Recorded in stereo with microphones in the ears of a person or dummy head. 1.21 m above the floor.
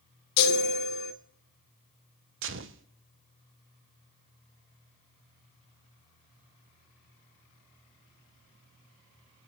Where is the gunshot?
65° right (ahead or behind), 0.9 m.